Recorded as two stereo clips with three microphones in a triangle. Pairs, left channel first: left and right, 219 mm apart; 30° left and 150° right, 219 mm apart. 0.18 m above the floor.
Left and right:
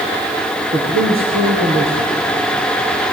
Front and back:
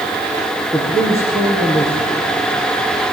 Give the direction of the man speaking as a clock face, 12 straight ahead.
2 o'clock.